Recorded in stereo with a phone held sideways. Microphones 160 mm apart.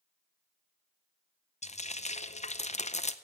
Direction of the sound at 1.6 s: 45° left (ahead or behind).